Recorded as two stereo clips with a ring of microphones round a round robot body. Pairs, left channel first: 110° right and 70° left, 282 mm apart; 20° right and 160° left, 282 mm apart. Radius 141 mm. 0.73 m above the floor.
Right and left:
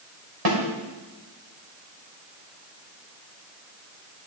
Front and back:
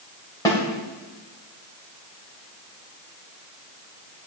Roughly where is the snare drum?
Ahead left.